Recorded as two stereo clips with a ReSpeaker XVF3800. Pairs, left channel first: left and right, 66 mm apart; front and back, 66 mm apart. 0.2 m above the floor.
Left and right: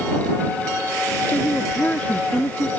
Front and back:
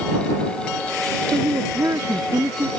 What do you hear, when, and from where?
1.3 s a woman speaking: 155° left